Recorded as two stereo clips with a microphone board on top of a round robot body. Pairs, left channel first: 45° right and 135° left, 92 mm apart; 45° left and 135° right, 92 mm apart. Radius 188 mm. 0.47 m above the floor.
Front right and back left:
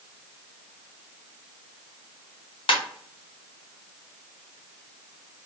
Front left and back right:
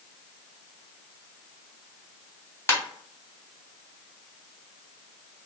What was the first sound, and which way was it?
A ringtone, 20° right.